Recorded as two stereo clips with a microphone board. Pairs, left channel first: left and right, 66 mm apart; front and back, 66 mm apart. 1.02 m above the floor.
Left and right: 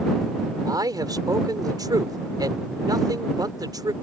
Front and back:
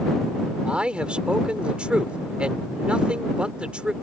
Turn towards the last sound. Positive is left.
turn(degrees=-110)